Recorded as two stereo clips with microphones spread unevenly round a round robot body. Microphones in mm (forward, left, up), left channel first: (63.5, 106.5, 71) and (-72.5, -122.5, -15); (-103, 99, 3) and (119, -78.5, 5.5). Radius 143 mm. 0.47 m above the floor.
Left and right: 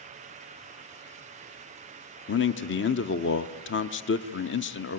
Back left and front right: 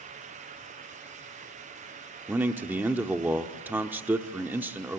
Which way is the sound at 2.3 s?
35° left.